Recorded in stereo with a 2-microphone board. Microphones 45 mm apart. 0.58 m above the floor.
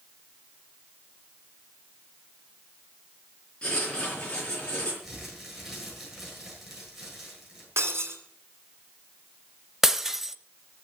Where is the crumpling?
5° right (ahead or behind), 8 m.